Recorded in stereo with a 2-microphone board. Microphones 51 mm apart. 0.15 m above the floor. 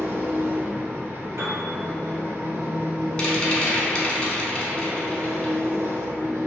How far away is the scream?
I don't hear a scream.